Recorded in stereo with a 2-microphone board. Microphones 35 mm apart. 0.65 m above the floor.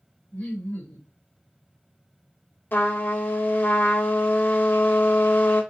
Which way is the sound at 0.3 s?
50° left (ahead or behind).